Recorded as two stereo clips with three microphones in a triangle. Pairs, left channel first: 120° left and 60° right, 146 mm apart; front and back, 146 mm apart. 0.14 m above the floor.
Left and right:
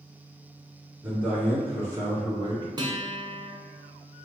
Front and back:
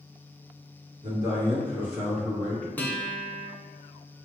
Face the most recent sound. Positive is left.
turn(degrees=-65)